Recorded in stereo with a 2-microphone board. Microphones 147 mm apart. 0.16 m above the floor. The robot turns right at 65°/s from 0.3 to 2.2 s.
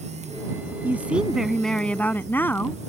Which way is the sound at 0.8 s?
15° right (ahead or behind).